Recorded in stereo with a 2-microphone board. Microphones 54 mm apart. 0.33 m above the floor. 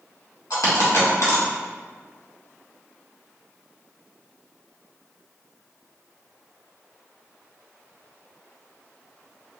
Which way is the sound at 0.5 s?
80° left.